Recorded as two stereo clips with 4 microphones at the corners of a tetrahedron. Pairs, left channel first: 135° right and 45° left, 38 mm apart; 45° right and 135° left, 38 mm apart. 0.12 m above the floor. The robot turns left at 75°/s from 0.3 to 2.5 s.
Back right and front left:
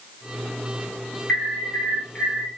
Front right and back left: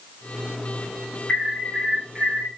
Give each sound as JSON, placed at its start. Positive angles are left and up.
{"t": 1.3, "sound": "an alarm", "azimuth_deg": -95, "distance_m": 5.0}